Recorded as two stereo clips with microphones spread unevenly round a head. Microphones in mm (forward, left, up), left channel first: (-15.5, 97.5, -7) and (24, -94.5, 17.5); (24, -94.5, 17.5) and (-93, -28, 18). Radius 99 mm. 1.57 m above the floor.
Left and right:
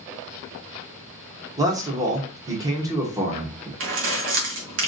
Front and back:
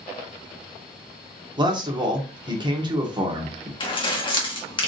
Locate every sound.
1.6 s a man speaking: 150° right, 1.8 m
3.8 s keys jangling: 80° right, 1.8 m